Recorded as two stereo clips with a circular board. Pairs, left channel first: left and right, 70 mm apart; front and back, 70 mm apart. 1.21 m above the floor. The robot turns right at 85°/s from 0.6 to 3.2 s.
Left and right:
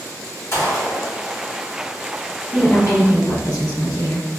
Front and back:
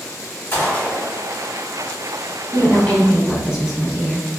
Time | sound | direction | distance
0.5 | a gunshot | 60° left | 1.2 m
2.5 | a woman speaking | 40° left | 1.2 m